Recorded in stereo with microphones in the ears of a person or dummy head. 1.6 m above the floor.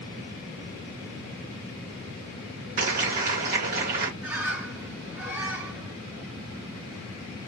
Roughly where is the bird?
Centre.